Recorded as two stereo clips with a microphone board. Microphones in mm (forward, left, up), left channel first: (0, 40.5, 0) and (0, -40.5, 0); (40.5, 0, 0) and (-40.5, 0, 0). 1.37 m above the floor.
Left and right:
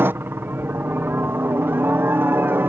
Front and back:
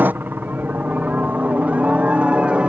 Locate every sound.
0.0 s a helicopter: 130° right; by 2.7 s 115° right